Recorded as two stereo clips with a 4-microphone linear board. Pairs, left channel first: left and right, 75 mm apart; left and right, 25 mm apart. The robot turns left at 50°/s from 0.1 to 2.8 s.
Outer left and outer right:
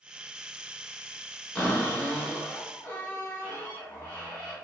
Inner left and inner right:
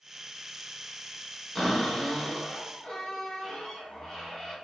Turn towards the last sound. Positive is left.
turn(degrees=20)  # may be behind; listen again after turning